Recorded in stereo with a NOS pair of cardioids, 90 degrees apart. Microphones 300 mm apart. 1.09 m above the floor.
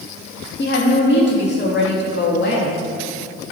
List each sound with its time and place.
0.6 s a woman speaking: 35° left, 1.9 m